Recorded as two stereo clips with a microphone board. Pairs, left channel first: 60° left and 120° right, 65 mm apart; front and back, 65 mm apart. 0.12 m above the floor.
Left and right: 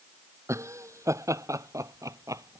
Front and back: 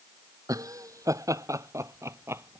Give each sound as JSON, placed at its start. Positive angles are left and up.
{"t": 0.5, "sound": "laughter", "azimuth_deg": -160}